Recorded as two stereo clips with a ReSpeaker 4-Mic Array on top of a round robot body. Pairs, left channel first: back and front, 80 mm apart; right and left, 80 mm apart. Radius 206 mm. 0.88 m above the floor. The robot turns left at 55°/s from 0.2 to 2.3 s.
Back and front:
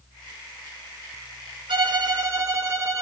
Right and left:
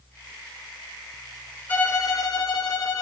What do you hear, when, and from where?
1.7 s a violin: 20° right, 1.7 m; by 3.0 s 55° right, 1.7 m